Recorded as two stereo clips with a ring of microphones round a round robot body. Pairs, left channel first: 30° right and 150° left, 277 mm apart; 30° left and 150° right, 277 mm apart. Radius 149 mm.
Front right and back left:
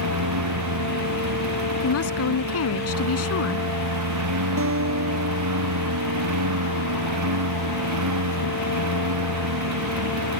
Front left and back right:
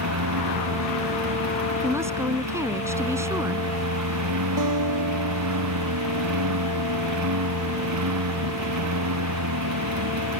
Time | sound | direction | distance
0.0 | a lawn mower | straight behind | ?
1.8 | a woman speaking | 70° right | ?
4.6 | a guitar | 165° right | ?